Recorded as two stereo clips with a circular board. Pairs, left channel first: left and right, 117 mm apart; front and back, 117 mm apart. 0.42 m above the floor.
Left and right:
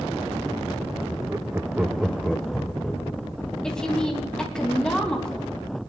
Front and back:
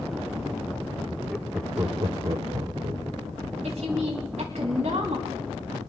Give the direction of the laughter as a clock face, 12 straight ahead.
3 o'clock.